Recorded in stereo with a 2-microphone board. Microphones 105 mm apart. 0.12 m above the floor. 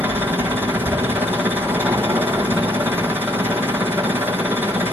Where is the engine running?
20° right (ahead or behind), 1.5 m.